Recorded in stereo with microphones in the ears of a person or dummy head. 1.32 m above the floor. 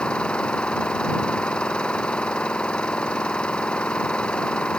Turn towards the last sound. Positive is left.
turn(degrees=10)  # may be behind; listen again after turning